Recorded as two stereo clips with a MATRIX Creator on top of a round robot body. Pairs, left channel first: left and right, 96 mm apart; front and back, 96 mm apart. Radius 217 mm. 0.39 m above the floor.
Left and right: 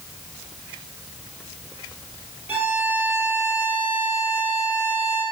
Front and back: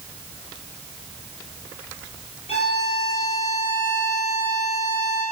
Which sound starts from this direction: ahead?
A violin, at 2.5 s.